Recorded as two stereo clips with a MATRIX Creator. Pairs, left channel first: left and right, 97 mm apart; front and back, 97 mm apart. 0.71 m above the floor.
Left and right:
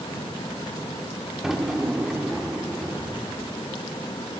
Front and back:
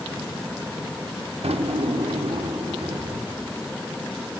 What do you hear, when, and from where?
1.4 s a drawer: 175° right, 0.7 m